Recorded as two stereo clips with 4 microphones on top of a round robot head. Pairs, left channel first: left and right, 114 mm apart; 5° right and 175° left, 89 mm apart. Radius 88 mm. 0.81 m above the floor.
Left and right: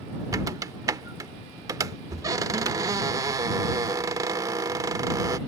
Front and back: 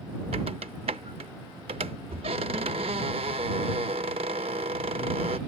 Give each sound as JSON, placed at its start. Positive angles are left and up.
{"t": 0.3, "sound": "a squeak", "azimuth_deg": -145}